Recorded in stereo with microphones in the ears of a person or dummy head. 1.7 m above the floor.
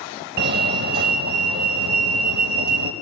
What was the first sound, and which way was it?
A fire alarm, 60° right (ahead or behind).